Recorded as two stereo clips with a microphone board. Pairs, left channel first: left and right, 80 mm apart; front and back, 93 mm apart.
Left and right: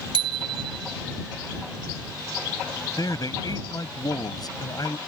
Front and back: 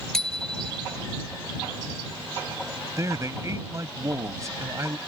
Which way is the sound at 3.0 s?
125° left.